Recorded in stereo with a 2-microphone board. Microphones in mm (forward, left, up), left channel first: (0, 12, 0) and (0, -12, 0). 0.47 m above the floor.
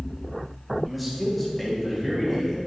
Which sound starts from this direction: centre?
A man speaking, at 0.8 s.